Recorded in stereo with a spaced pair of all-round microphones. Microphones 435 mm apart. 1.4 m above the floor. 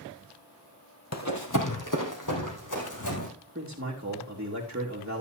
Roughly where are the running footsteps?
Left.